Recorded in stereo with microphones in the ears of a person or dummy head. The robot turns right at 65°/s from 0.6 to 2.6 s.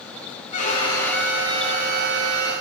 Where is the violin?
140° left, 1.0 m; by 2.5 s 95° right, 1.0 m.